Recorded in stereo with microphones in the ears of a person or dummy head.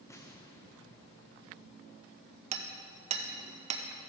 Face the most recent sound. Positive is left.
turn(degrees=-35)  # may be behind; listen again after turning